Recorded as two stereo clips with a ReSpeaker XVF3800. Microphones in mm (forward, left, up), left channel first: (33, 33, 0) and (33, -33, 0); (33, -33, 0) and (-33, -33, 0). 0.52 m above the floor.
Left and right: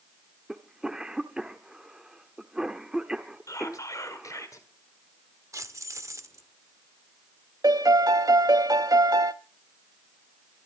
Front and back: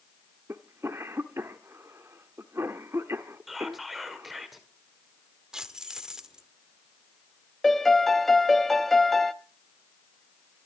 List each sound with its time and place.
0.5 s a cough: 160° right, 1.1 m
3.5 s whispering: 90° left, 1.8 m
5.5 s keys jangling: 100° right, 1.0 m
7.6 s a piano: 85° right, 0.7 m